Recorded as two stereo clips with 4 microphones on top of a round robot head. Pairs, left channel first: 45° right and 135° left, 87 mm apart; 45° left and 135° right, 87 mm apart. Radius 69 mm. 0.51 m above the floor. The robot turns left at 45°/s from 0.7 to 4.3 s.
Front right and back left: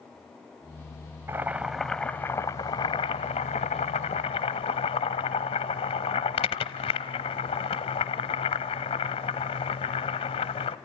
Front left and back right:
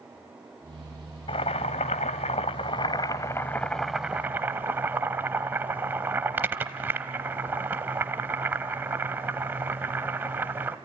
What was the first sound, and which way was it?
Boiling, 70° left.